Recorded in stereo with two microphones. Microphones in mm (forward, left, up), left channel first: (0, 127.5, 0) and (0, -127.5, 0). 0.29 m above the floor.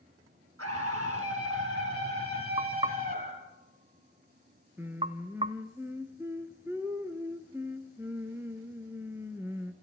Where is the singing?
10° right (ahead or behind), 1.5 m.